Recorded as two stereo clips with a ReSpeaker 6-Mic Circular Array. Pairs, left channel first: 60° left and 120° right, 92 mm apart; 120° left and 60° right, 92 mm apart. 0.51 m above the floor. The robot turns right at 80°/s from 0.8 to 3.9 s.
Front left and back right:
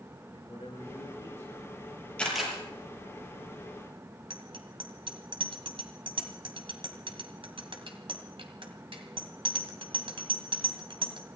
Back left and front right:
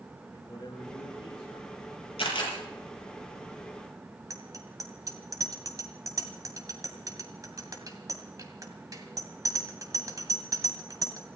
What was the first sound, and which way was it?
A man speaking, 75° left.